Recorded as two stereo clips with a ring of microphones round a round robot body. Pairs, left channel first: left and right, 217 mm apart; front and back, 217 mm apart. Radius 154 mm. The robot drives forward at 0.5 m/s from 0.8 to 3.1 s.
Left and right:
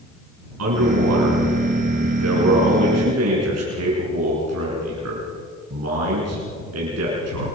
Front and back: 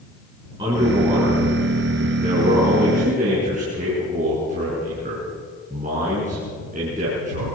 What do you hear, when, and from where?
0.6 s a man speaking: 105° right, 6 m; by 7.5 s 115° right, 6.5 m